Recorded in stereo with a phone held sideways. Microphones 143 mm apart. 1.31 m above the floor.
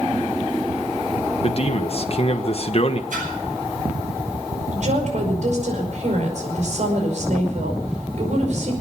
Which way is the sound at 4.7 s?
60° right (ahead or behind).